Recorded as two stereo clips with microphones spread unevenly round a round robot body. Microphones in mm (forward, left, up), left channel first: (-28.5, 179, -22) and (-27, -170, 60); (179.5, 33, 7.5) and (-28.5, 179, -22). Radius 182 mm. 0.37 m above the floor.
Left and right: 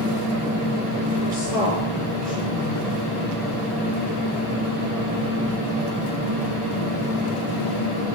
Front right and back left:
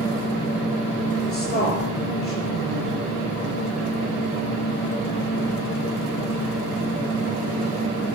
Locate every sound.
1.3 s a woman speaking: 15° left, 6 m